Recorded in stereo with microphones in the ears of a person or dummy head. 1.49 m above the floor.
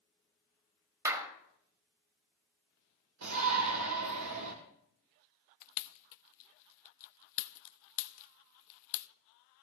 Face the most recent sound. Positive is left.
turn(degrees=70)  # may be behind; listen again after turning